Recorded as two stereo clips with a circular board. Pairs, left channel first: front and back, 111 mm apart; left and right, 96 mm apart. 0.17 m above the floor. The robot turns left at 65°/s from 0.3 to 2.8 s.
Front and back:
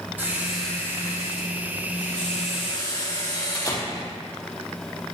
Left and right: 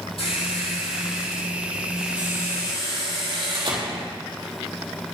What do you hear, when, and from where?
0.2 s a squeak: 105° left, 4.5 m; by 4.1 s 55° right, 4.5 m